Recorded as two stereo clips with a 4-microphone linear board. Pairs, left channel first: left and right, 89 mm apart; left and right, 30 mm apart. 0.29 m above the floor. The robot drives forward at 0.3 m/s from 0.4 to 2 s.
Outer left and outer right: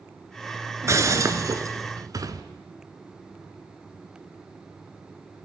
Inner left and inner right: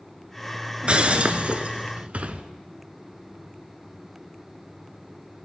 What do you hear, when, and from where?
0.8 s breaking glass: 35° right (ahead or behind), 1.5 m; by 2.4 s 45° right (ahead or behind), 1.2 m